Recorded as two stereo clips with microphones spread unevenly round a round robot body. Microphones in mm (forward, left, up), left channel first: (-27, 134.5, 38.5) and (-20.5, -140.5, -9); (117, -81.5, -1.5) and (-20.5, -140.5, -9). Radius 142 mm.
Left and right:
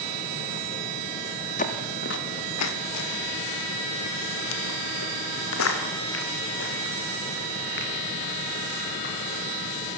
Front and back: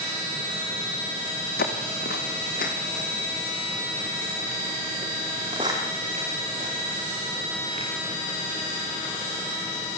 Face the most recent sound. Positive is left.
turn(degrees=145)